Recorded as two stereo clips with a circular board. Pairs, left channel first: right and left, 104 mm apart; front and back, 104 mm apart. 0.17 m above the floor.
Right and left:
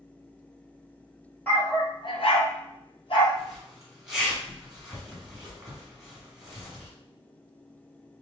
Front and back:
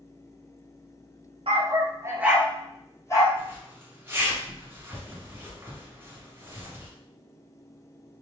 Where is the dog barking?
160° right, 0.8 m; by 3.3 s 55° right, 1.1 m.